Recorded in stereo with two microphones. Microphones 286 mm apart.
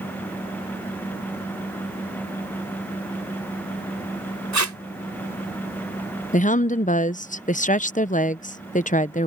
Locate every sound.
4.5 s tape being pulled: 75° right (ahead or behind)
6.3 s a woman speaking: 25° left (ahead or behind)